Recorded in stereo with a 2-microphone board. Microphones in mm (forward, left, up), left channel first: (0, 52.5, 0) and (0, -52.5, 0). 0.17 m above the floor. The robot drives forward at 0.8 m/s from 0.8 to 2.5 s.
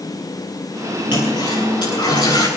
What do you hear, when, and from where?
1.1 s a toilet flushing: 45° left (ahead or behind), 6 m; by 2.5 s 40° left (ahead or behind), 6.5 m